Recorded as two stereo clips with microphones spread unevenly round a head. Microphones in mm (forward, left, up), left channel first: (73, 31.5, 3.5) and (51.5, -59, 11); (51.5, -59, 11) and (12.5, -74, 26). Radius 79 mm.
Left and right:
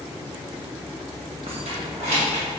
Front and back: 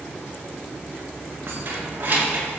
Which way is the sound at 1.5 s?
140° right.